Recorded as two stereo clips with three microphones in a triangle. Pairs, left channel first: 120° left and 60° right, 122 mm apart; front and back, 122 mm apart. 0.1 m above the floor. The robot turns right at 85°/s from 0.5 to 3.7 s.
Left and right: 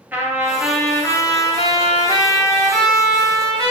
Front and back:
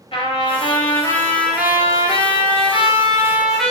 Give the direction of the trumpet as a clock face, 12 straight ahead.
12 o'clock.